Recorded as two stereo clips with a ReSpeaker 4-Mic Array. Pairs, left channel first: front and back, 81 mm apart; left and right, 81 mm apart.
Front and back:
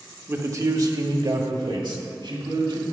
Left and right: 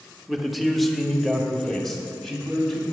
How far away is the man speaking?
About 1.0 m.